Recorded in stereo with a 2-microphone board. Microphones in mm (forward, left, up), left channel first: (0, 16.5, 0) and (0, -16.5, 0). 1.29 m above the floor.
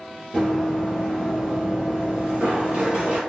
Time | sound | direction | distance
0.3 | running footsteps | centre (ahead or behind) | 1.5 m